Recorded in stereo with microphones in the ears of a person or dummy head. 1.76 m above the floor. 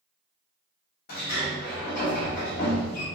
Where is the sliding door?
50° left (ahead or behind), 1.1 m.